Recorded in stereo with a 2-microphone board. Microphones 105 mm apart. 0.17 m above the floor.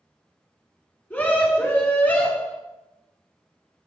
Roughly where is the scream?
Centre.